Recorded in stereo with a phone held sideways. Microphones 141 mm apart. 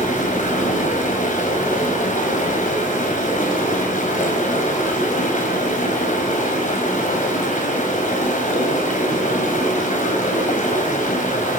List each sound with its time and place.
0.0 s running water: 65° left (ahead or behind), 4 m